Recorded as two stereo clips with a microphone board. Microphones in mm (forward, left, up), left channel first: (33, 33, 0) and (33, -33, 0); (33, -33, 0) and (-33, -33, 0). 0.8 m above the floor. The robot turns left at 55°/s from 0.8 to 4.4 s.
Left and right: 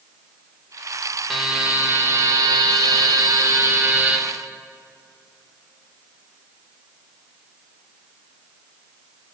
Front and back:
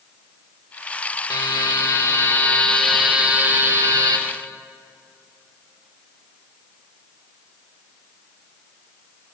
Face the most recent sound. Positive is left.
turn(degrees=-170)